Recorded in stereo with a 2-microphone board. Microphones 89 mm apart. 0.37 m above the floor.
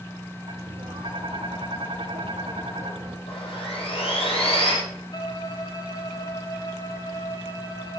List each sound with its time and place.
0.5 s tapping: 75° right (ahead or behind), 3.5 m
3.3 s sawing: 85° left, 6 m
5.1 s a violin: 45° left (ahead or behind), 2 m